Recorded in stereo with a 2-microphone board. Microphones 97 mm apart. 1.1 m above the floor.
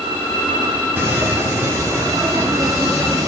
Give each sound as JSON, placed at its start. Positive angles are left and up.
{"t": 1.0, "sound": "footsteps", "side_deg": -20, "distance_m": 1.4}